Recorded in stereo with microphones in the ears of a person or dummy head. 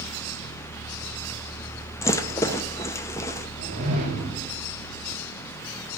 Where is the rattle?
15° left (ahead or behind), 0.7 m.